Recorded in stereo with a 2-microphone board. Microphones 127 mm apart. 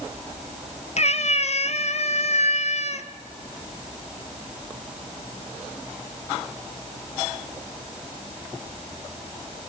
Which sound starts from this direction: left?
A cat meowing, at 1.0 s.